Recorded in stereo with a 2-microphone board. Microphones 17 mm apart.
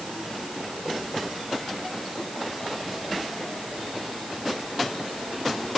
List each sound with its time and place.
Only background noise.